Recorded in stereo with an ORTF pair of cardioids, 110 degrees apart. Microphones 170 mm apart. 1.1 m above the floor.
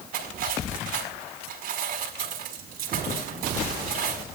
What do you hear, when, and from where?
0.1 s cutlery clinking: 60° right, 5 m